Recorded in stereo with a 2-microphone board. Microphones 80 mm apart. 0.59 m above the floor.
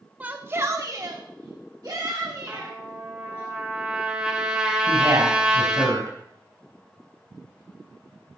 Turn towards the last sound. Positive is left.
turn(degrees=-50)  # may be behind; listen again after turning